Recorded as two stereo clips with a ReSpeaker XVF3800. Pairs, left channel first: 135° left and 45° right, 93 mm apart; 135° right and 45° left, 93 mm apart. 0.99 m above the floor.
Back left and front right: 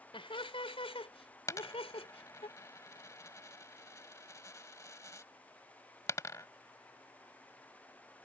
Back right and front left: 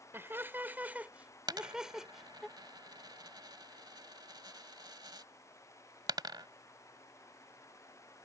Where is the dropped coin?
80° left.